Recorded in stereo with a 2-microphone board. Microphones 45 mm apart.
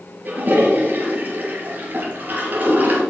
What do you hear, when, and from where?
0.2 s a toilet flushing: 40° right (ahead or behind), 3.5 m